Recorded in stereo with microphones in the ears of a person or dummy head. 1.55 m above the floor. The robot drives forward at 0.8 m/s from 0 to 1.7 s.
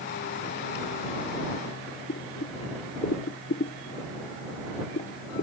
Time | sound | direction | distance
2.1 | boiling | 45° left (ahead or behind) | ?